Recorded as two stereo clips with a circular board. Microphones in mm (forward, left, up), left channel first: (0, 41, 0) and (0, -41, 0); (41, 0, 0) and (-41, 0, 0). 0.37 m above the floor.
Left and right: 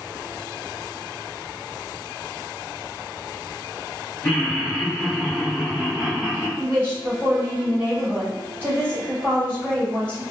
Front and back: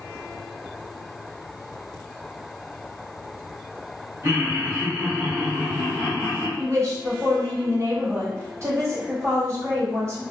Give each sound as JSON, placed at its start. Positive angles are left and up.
{"t": 4.2, "sound": "laughter", "azimuth_deg": 170, "distance_m": 1.0}
{"t": 6.6, "sound": "a woman speaking", "azimuth_deg": -145, "distance_m": 1.4}